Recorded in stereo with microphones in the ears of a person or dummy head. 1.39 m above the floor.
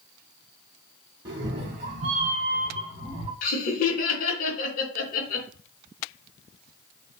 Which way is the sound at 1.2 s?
20° right (ahead or behind).